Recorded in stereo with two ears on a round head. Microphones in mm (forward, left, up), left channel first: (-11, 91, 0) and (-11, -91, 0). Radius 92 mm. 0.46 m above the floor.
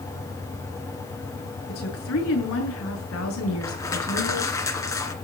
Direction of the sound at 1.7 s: 80° left.